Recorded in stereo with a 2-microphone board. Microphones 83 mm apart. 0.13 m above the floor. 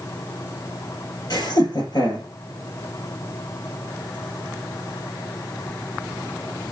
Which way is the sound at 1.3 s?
55° left (ahead or behind).